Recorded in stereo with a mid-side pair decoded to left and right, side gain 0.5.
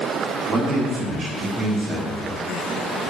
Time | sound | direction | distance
0.5 | a man speaking | 50° right | 1.7 m